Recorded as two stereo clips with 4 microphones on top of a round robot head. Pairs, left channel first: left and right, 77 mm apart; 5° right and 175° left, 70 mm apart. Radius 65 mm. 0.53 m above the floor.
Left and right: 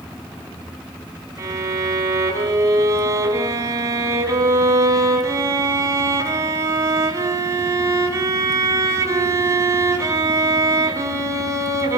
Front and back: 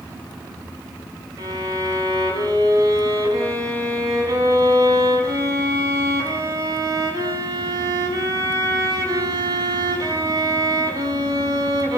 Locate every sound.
1.4 s a violin: 140° right, 5.5 m